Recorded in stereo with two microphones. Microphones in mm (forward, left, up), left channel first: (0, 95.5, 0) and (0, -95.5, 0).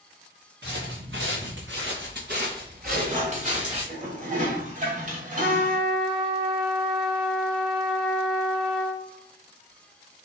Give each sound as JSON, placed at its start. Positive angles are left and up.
{"t": 0.6, "sound": "footsteps", "side_deg": -65, "distance_m": 1.9}
{"t": 2.9, "sound": "dishes clattering", "side_deg": -40, "distance_m": 1.3}
{"t": 5.4, "sound": "a trumpet", "side_deg": -50, "distance_m": 2.0}